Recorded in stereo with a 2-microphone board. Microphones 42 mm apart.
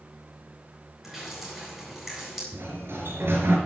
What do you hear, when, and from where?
1.0 s dripping: 5° right (ahead or behind), 8 m
2.5 s a sliding door: 75° right (ahead or behind), 3.5 m